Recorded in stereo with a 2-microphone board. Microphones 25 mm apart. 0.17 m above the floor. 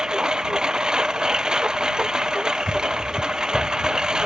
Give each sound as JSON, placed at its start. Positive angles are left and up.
{"t": 0.0, "sound": "a lawn mower", "side_deg": -40}